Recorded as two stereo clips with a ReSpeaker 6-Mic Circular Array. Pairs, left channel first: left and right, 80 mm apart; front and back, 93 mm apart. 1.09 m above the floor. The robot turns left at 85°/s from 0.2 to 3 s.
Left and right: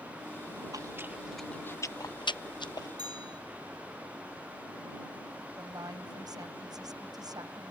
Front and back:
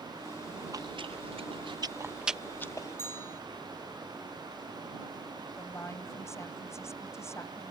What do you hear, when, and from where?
0.7 s chewing: 130° right; by 2.9 s 50° left
3.0 s a bell: 65° right
5.6 s a woman speaking: 60° right